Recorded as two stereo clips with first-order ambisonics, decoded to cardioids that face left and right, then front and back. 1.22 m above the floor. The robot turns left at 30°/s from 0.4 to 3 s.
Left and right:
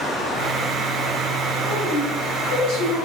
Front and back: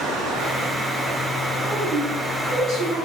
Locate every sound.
0.0 s running water: 150° left, 1.8 m; by 3.1 s 75° left, 1.8 m
1.6 s a woman speaking: 145° left, 2 m; by 3.1 s 105° left, 2 m